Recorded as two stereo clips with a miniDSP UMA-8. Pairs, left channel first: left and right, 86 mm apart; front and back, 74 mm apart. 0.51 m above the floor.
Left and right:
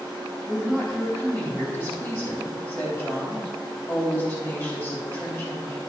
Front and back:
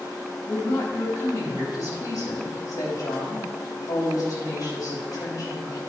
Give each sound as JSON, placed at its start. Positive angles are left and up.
{"t": 0.5, "sound": "a woman speaking", "azimuth_deg": 25, "distance_m": 3.0}